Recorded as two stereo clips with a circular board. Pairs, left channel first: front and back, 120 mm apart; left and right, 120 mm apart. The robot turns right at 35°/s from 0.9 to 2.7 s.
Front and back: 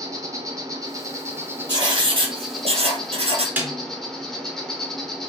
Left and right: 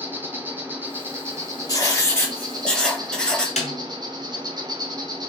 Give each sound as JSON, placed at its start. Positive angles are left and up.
{"t": 0.0, "sound": "an insect", "azimuth_deg": -150, "distance_m": 0.7}
{"t": 1.7, "sound": "writing", "azimuth_deg": 135, "distance_m": 0.7}
{"t": 3.6, "sound": "a snare drum", "azimuth_deg": 105, "distance_m": 1.0}